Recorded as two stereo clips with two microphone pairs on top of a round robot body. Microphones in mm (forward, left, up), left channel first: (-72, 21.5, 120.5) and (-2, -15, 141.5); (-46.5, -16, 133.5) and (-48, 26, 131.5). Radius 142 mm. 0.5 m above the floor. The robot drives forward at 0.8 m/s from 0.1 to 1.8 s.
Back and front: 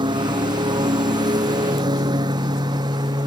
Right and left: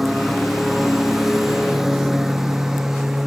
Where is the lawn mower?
5° left; by 3.3 s 10° left.